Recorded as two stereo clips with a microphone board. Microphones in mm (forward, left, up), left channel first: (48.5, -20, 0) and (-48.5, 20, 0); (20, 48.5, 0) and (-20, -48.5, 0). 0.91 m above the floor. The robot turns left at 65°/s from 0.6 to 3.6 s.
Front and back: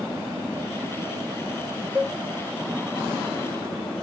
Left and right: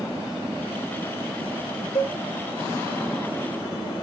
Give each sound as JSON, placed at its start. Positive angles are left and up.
{"t": 1.9, "sound": "a cowbell", "azimuth_deg": 85, "distance_m": 1.6}